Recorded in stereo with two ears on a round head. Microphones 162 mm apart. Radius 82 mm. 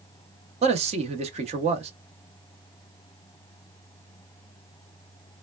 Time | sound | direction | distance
0.6 | a man speaking | 35° right (ahead or behind) | 0.6 m